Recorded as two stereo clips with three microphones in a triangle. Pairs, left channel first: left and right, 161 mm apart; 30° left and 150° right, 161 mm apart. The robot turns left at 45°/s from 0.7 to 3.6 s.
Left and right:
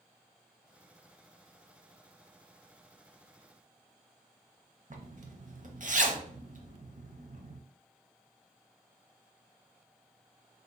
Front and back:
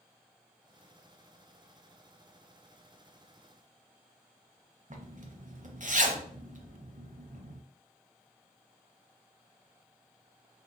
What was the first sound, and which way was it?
A zipper, 120° right.